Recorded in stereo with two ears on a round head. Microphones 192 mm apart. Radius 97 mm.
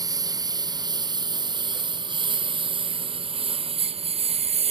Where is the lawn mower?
20° right (ahead or behind); by 4.7 s 30° right (ahead or behind).